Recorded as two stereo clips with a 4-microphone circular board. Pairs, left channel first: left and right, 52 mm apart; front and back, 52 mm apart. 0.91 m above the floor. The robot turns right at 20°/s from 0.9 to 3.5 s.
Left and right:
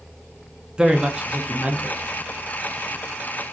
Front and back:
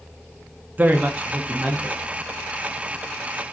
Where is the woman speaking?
155° right, 0.5 m; by 2.1 s 130° right, 0.5 m.